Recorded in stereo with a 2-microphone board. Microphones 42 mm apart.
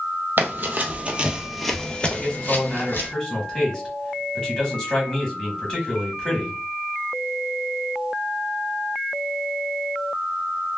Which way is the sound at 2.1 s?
15° left (ahead or behind).